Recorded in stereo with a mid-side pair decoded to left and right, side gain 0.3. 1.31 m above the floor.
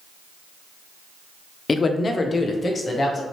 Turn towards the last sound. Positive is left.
turn(degrees=55)